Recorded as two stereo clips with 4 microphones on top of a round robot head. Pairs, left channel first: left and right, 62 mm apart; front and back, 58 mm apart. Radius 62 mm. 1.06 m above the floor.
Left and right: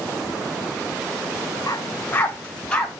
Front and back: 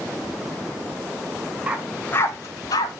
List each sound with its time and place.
1.7 s a dog barking: 130° left, 0.9 m; by 3.0 s 10° left, 1.8 m